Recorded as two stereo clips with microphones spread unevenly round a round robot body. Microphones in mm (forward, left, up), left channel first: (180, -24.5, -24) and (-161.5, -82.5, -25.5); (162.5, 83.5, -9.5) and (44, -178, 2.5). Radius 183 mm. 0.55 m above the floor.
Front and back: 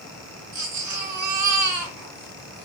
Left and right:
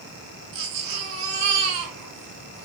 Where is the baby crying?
130° right, 4 m.